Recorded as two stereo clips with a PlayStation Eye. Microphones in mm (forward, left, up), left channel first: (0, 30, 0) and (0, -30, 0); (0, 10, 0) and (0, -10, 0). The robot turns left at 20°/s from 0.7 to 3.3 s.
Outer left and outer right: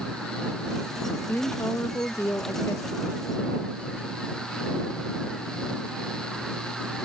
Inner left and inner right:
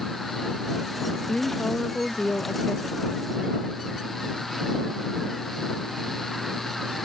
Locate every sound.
1.3 s a woman speaking: 115° left; by 3.1 s 80° left